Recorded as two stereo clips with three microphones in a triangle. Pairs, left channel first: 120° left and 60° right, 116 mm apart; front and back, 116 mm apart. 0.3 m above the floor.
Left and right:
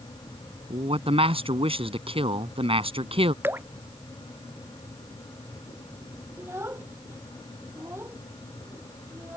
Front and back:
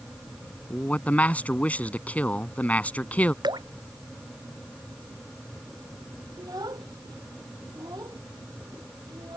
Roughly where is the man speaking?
Right.